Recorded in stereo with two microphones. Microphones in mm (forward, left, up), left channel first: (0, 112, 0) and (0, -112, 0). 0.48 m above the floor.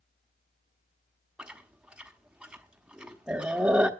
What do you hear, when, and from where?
1.4 s chewing: 5° right (ahead or behind), 1.0 m